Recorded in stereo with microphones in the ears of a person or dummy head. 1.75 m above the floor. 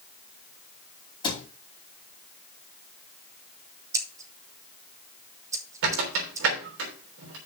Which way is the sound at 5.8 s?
65° right (ahead or behind).